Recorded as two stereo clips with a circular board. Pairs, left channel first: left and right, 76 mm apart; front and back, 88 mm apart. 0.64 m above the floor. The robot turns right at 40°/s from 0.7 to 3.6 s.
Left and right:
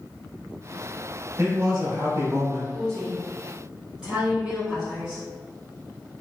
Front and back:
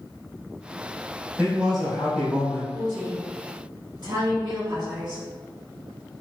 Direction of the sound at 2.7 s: 160° left.